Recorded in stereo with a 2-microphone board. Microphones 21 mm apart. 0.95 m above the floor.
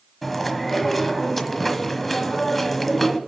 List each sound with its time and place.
0.2 s chewing: 5° left (ahead or behind), 1.2 m